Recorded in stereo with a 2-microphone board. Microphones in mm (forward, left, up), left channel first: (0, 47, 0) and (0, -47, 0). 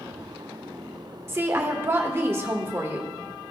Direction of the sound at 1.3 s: 25° right (ahead or behind).